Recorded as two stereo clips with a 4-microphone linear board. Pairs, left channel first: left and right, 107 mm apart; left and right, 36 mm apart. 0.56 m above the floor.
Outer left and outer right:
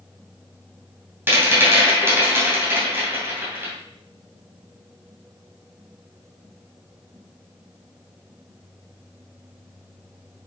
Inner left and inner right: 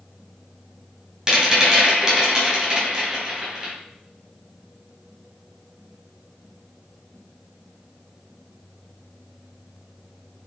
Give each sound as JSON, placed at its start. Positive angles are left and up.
{"t": 1.3, "sound": "a rattle", "side_deg": -20, "distance_m": 2.5}